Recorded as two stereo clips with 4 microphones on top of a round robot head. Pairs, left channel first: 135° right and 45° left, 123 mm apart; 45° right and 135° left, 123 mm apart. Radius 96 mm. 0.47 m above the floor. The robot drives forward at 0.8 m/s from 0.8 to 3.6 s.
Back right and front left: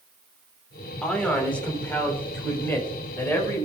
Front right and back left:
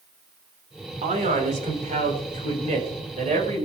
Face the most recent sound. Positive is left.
turn(degrees=155)